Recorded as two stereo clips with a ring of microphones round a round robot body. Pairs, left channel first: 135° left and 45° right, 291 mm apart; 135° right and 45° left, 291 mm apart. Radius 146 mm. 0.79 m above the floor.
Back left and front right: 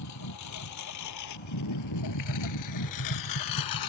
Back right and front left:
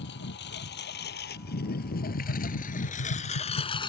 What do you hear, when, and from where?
0.0 s a lawn mower: 170° left; by 3.9 s 150° left
2.2 s tapping: 175° right